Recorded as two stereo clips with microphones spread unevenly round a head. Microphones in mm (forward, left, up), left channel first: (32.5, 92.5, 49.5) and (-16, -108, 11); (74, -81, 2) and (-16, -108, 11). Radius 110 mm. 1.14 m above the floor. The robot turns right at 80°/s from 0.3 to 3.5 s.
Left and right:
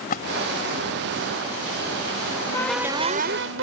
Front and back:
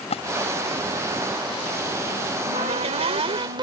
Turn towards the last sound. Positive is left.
turn(degrees=-135)